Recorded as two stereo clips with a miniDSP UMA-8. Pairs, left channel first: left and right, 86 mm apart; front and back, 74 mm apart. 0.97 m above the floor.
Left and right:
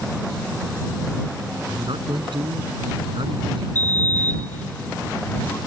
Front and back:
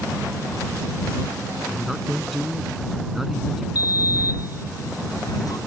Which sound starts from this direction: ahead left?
A sliding door, at 3.8 s.